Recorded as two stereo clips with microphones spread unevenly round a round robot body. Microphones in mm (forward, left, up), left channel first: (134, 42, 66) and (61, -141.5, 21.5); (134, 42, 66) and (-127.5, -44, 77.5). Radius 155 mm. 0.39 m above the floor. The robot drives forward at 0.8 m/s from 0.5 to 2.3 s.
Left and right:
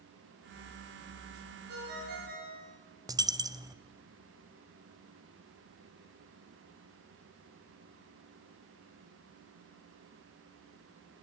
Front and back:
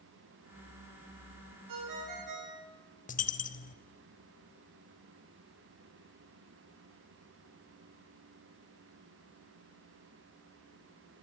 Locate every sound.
1.7 s a ringtone: 155° right, 3.5 m; by 2.7 s 160° right, 4 m
3.1 s a dropped coin: 45° right, 1.0 m